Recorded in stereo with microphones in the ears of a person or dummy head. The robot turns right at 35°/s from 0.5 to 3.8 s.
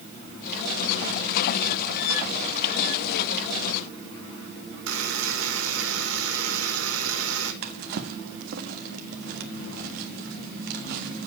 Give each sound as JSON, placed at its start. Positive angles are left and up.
{"t": 4.9, "sound": "a buzzer", "side_deg": -85, "distance_m": 4.0}
{"t": 7.6, "sound": "a drawer", "side_deg": -50, "distance_m": 1.4}